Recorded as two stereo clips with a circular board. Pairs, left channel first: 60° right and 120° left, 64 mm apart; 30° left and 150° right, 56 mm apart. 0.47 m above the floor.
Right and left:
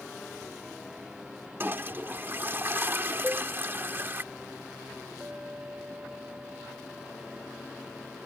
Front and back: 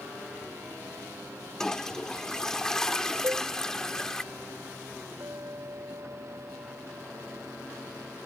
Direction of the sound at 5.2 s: 175° right.